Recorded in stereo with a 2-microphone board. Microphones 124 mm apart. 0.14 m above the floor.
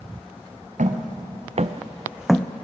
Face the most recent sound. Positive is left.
turn(degrees=15)  # may be behind; listen again after turning